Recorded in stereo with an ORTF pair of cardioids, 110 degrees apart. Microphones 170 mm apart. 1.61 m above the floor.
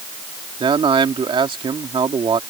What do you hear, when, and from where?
0.6 s a man speaking: 30° right